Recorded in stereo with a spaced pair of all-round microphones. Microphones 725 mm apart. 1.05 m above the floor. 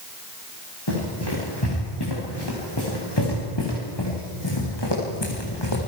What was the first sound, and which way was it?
Running footsteps, 35° left (ahead or behind).